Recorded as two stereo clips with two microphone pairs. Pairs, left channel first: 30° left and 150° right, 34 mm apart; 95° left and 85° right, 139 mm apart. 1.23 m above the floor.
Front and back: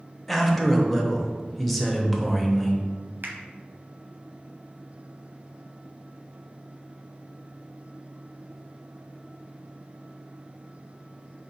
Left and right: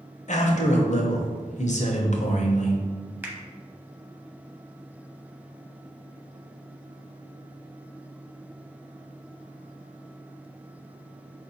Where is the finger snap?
160° right, 0.7 m.